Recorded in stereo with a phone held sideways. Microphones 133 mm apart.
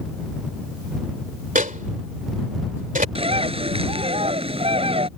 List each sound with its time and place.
1.6 s a microwave: 85° right
3.1 s a bird: 45° right (ahead or behind)